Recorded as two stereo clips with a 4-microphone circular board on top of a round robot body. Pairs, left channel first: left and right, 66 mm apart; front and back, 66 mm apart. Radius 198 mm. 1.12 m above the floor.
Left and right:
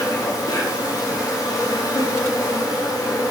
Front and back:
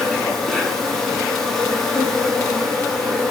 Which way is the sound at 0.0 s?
85° left.